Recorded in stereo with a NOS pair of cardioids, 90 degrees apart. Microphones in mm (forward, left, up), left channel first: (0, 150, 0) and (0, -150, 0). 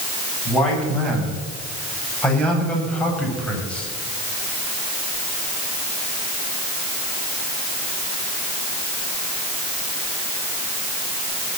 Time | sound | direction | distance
0.5 | a man speaking | 5° left | 8 m